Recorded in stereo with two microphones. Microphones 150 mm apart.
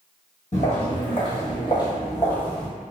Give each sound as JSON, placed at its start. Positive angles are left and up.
{"t": 0.5, "sound": "footsteps", "side_deg": 50, "distance_m": 1.7}